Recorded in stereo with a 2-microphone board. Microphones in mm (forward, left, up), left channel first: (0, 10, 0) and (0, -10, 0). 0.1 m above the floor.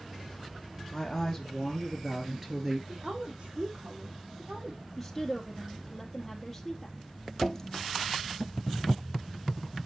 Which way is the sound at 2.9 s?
75° right (ahead or behind).